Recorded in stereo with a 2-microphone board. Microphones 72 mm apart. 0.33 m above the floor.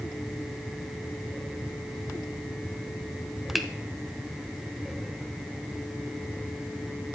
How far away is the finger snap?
About 1.0 m.